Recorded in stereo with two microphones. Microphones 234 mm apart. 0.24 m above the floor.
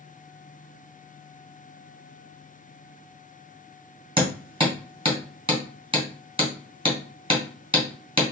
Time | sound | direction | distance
4.2 | hammering | 20° right (ahead or behind) | 1.8 m